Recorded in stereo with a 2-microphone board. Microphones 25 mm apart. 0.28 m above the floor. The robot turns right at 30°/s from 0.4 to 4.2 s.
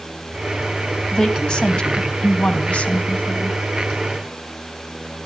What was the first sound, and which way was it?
A woman speaking, 35° left.